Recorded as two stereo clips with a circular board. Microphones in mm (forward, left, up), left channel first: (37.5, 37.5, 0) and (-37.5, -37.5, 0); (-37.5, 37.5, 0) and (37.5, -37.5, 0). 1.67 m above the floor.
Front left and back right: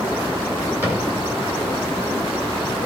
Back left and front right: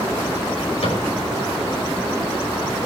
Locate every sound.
0.8 s a cupboard door: 155° left, 9.5 m